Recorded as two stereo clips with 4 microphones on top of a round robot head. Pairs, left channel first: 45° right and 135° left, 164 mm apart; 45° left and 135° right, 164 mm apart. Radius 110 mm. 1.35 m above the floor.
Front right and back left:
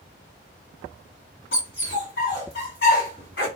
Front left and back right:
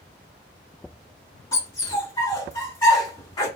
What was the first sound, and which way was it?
A dog barking, 20° right.